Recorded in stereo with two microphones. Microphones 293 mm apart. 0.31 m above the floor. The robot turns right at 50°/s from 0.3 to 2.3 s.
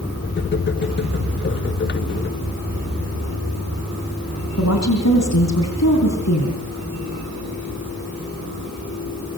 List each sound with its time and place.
4.6 s a woman speaking: 60° left (ahead or behind), 3.5 m